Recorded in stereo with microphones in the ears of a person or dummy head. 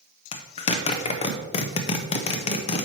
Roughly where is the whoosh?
No whoosh in this recording.